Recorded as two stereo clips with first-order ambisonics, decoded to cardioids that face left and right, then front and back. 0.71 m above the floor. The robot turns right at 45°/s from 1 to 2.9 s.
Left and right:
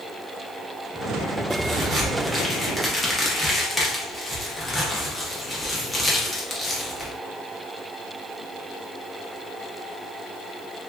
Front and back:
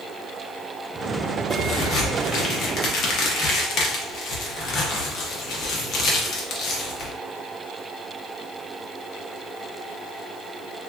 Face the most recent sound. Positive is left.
turn(degrees=10)